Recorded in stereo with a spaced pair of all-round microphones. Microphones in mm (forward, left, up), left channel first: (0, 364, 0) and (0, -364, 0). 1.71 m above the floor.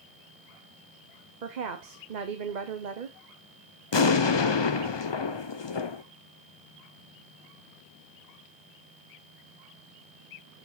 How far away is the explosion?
About 0.6 m.